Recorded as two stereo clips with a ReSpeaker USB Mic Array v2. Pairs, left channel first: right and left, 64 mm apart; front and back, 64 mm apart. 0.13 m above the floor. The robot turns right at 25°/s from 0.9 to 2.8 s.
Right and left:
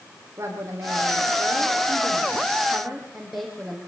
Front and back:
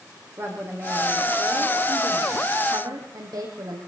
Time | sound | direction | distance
0.4 | a woman speaking | 135° left | 6.5 m